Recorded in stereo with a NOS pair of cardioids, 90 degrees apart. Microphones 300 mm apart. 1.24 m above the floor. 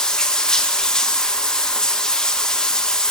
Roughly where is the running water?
Ahead.